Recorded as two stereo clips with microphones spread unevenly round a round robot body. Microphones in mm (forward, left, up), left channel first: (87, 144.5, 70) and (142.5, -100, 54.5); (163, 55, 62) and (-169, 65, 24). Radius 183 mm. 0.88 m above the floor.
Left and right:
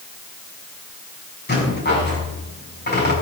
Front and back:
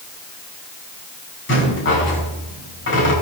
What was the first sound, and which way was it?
A rattle, 55° left.